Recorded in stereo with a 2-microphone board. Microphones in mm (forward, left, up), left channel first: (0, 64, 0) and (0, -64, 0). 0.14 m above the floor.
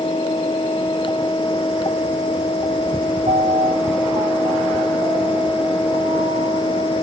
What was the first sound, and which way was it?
A piano, 65° right (ahead or behind).